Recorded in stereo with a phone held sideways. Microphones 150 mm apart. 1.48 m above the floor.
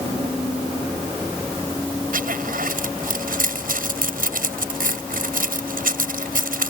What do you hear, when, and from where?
2.1 s a zipper: 70° right (ahead or behind)